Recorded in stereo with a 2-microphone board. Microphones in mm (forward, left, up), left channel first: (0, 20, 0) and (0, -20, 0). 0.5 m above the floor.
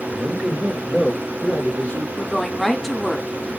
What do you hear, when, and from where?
0.1 s a man speaking: 40° right (ahead or behind), 2 m; by 2.1 s 45° left (ahead or behind), 1.7 m
2.2 s a woman speaking: 5° left (ahead or behind), 0.8 m